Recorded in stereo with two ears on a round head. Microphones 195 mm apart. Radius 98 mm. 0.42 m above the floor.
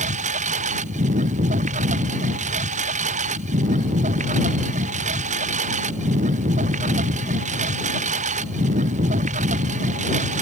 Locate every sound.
0.0 s a lawn mower: 35° right (ahead or behind)